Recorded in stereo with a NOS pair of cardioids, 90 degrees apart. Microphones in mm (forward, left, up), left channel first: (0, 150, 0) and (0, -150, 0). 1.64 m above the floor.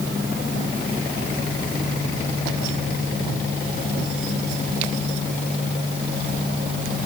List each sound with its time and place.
Only background noise.